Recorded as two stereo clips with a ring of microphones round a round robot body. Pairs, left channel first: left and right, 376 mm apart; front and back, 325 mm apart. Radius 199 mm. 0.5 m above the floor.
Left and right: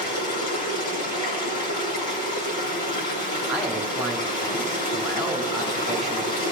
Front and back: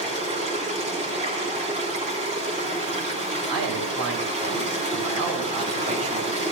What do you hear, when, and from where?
0.0 s running water: 110° left, 4 m
3.5 s a man speaking: straight behind, 3 m